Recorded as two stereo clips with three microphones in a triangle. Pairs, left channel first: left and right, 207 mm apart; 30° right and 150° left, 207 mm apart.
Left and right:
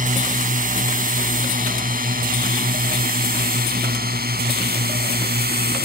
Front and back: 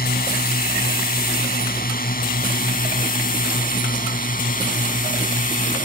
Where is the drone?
55° right; by 5.9 s 70° right.